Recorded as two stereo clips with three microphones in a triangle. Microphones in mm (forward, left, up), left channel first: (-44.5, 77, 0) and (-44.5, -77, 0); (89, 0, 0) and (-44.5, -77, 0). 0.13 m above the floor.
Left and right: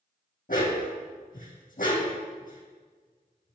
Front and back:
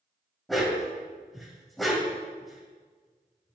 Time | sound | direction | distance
0.5 | a dog barking | 120° left | 2.5 m